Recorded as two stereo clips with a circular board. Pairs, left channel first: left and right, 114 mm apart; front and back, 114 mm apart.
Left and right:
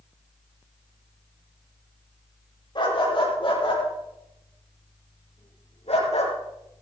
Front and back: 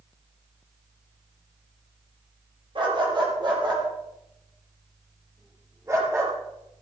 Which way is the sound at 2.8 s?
135° left.